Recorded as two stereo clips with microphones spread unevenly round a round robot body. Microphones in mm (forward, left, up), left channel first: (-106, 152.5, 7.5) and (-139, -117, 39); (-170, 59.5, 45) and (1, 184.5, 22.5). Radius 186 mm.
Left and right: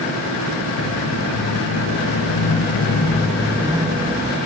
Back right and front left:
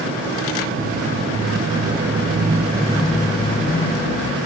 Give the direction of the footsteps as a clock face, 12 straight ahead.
10 o'clock.